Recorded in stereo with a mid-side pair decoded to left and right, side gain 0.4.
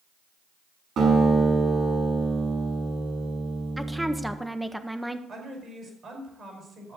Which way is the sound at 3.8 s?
5° right.